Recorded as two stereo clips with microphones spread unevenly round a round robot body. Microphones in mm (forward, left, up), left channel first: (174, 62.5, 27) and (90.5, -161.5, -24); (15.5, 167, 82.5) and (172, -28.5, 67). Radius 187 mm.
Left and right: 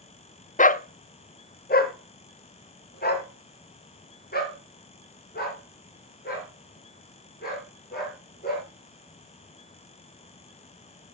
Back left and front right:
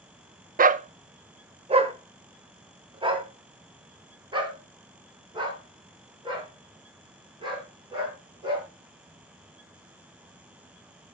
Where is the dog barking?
10° left, 0.6 m; by 8.7 s 20° left, 6.5 m.